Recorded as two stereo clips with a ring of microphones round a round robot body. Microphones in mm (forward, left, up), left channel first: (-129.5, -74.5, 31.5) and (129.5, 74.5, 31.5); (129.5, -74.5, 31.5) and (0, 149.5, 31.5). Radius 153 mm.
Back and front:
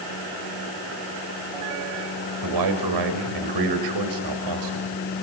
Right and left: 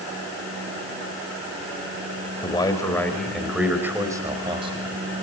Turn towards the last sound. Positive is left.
turn(degrees=55)